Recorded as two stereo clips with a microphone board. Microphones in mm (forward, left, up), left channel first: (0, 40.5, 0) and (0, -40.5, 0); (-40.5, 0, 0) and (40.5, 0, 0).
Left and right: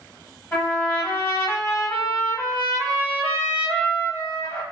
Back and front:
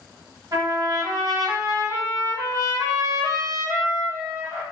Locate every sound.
0.5 s a trumpet: 35° left, 1.0 m